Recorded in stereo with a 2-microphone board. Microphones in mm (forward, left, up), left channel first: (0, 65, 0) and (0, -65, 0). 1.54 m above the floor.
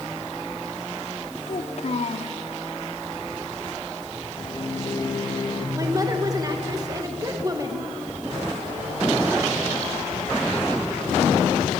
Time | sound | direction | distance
1.5 | a child speaking | 55° left (ahead or behind) | 1.7 m
4.4 | a microwave | 35° left (ahead or behind) | 2 m
5.8 | a woman speaking | 30° right (ahead or behind) | 1.7 m